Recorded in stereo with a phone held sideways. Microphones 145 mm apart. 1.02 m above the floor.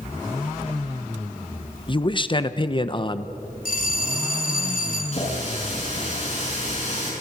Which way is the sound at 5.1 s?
55° left (ahead or behind).